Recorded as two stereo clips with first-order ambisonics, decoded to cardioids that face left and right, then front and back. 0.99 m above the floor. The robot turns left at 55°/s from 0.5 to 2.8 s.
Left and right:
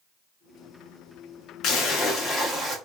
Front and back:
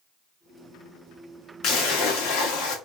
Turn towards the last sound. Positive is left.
turn(degrees=-20)